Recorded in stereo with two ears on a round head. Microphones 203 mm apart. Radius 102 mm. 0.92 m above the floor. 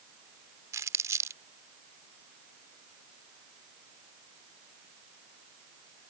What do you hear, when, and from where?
0.7 s crumpling: 15° right (ahead or behind)